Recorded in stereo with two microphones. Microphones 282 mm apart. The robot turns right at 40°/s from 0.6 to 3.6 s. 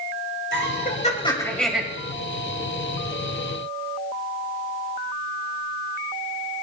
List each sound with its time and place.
0.5 s laughter: 135° left, 2.5 m; by 1.8 s 175° right, 2.5 m